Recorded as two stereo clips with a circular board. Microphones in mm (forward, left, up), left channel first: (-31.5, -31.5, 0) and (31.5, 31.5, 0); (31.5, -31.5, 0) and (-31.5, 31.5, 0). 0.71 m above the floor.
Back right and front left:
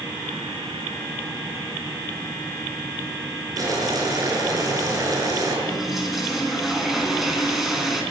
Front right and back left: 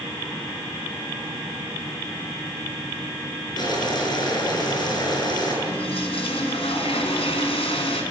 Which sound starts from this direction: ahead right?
A toilet flushing, at 5.7 s.